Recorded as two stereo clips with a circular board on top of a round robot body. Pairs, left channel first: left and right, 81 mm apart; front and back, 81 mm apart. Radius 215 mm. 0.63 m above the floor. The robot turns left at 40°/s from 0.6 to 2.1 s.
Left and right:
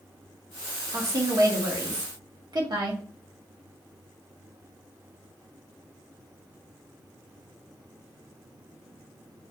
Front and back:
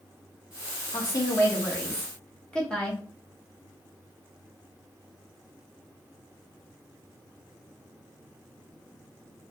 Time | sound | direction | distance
0.9 | a woman speaking | 30° right | 1.4 m